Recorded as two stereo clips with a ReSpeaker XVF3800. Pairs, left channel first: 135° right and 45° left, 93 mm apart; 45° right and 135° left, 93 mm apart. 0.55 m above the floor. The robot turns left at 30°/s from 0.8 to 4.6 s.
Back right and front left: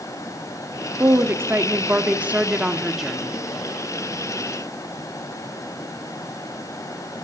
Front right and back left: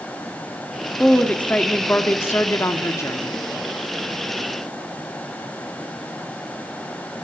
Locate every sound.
1.0 s a woman speaking: 25° left, 1.2 m; by 3.3 s 45° right, 1.2 m